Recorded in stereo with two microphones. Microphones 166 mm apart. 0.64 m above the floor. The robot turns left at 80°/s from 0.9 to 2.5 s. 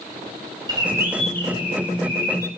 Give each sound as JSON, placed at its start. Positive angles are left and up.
{"t": 0.7, "sound": "a bird", "azimuth_deg": -155, "distance_m": 2.0}